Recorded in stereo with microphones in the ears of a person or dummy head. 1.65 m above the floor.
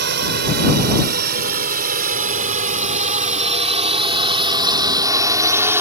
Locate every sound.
0.0 s a drone: 65° right (ahead or behind); by 5.8 s 20° right (ahead or behind)